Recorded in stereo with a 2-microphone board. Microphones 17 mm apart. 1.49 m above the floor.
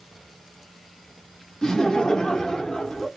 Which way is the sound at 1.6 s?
40° left (ahead or behind).